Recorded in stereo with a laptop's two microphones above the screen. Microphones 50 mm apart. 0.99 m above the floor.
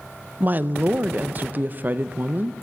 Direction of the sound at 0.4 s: 35° right (ahead or behind).